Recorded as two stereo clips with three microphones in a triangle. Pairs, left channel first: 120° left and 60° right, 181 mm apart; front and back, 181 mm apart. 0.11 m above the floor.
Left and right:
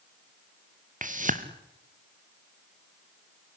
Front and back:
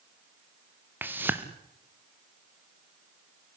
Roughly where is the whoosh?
Right.